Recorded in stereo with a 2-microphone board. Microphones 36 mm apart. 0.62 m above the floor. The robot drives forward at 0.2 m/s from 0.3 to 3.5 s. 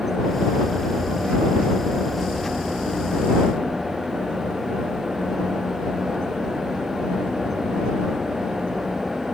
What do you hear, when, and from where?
Only background noise.